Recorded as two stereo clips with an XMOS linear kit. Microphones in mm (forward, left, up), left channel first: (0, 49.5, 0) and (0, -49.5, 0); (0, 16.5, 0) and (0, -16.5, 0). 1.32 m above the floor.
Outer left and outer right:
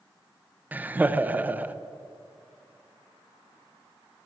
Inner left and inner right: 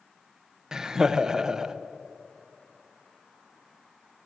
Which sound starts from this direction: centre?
Laughter, at 0.7 s.